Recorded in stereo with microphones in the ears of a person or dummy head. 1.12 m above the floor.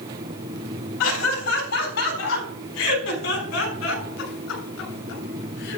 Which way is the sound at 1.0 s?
75° left (ahead or behind).